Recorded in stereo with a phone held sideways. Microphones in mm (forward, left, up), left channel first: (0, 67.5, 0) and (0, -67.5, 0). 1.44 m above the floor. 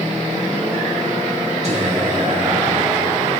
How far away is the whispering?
About 1.4 m.